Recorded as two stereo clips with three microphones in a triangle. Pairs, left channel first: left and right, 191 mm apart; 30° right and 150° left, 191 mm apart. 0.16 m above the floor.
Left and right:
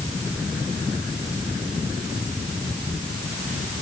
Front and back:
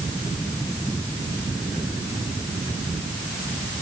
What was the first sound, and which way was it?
Only background noise.